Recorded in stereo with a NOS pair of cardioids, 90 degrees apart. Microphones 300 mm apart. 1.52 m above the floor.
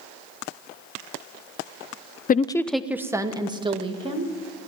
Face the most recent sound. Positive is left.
turn(degrees=-20)